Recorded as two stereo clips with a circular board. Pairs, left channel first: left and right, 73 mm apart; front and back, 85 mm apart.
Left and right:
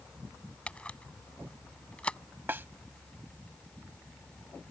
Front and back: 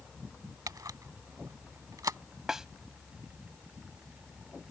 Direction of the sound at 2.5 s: 100° right.